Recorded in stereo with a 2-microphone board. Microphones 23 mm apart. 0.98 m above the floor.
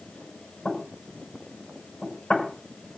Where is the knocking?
85° left, 5.5 m.